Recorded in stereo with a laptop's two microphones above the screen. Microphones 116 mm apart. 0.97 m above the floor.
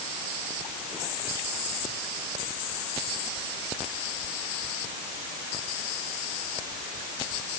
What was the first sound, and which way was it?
Only background noise.